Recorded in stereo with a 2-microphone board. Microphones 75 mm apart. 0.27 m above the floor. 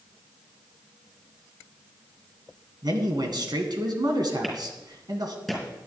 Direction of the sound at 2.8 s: 60° right (ahead or behind).